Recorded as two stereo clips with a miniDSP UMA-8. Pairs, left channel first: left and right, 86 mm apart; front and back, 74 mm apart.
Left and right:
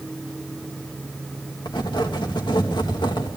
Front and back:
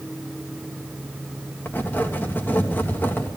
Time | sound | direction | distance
1.6 | writing | 65° left | 3 m